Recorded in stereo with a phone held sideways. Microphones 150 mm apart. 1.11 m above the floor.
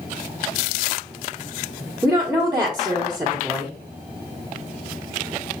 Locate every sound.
2.0 s a woman speaking: 15° right (ahead or behind), 1.1 m